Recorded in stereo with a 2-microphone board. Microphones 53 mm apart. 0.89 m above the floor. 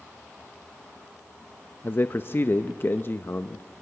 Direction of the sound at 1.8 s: 45° left (ahead or behind).